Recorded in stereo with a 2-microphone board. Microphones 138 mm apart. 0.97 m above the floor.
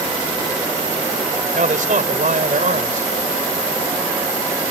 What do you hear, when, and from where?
1.6 s a man speaking: 75° right (ahead or behind)